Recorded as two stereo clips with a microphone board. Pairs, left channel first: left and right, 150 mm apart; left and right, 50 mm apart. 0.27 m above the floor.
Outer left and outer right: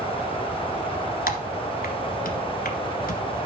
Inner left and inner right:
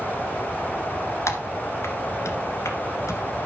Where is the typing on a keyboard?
75° left (ahead or behind), 1.7 m.